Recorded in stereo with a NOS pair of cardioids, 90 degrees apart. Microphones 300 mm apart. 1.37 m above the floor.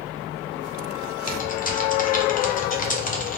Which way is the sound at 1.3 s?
30° left.